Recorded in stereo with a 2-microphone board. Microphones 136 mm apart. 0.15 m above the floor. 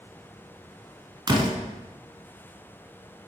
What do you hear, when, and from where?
1.3 s a door slam: 30° right (ahead or behind), 1.2 m